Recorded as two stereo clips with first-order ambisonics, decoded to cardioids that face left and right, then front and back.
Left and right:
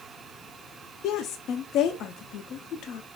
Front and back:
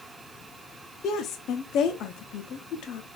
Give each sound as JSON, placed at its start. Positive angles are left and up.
{"t": 1.0, "sound": "a woman speaking", "azimuth_deg": 45, "distance_m": 0.5}